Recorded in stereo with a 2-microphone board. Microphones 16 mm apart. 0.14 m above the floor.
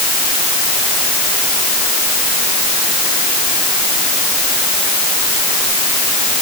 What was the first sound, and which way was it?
Only background noise.